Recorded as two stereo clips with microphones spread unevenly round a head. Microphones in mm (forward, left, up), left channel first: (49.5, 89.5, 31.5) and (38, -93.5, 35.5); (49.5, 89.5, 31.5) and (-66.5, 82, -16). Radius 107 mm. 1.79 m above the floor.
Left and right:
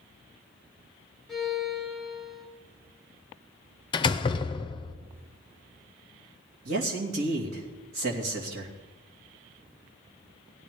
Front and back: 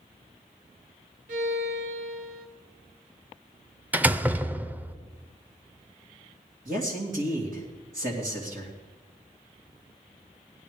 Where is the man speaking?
125° right, 2.5 m.